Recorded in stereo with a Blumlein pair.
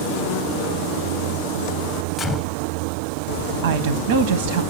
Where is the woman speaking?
60° right, 0.8 m.